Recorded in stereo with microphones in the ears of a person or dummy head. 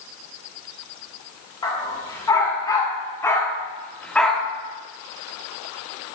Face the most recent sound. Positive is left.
turn(degrees=-5)  # may be behind; listen again after turning